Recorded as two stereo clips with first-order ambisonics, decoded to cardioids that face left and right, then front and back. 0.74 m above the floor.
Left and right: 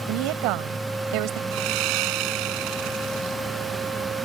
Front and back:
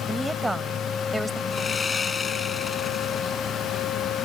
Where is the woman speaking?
95° right.